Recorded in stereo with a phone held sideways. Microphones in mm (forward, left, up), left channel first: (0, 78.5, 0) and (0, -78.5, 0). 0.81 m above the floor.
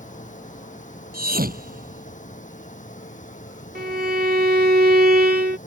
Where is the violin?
75° right (ahead or behind).